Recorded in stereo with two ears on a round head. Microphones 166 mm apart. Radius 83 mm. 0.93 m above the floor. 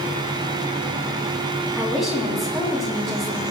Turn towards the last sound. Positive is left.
turn(degrees=0)  # may be behind; listen again after turning